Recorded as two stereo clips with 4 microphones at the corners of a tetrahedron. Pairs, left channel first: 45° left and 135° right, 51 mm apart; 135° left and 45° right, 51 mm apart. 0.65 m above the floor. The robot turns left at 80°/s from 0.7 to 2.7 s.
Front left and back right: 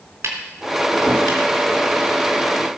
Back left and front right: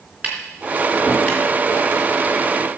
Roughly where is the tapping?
Right.